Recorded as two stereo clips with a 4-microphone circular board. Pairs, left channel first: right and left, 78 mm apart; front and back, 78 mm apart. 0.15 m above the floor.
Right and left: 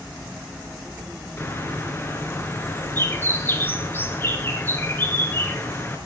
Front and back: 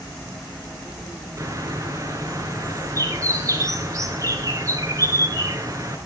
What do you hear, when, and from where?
1.4 s a bird: 145° right, 2.5 m